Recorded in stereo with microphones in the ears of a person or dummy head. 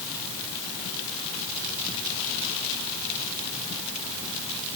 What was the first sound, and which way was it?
Only background noise.